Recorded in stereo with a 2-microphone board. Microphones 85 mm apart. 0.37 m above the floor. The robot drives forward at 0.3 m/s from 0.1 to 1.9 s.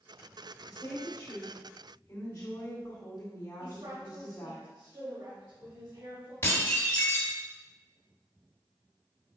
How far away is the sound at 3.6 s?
About 2 m.